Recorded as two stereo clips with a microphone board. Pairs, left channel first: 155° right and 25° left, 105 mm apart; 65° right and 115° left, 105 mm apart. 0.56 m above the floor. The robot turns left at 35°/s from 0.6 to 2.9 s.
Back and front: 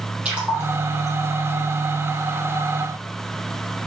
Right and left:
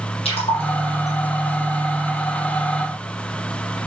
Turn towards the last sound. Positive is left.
turn(degrees=-140)